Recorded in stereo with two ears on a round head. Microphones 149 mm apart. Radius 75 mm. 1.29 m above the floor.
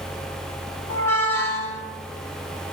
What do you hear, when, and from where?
0.9 s a squeak: 15° left (ahead or behind), 1.8 m